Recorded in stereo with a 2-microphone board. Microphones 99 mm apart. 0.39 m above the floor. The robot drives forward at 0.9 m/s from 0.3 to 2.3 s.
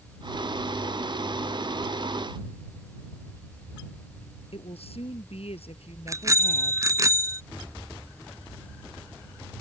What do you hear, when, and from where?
4.5 s a woman speaking: 80° left
6.1 s a bicycle bell: 30° right (ahead or behind)